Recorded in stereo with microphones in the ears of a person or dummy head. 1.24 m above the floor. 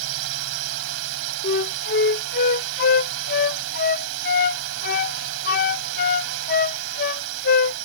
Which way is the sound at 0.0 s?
80° right.